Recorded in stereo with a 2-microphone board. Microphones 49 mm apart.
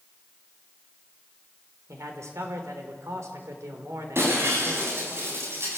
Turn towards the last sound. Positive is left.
turn(degrees=-55)  # may be behind; listen again after turning